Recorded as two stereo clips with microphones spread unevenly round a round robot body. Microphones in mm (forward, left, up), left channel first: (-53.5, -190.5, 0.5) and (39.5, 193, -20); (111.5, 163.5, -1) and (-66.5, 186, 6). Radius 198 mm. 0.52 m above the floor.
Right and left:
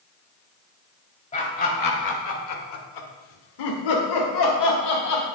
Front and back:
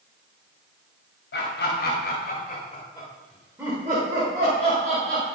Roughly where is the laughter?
Ahead right.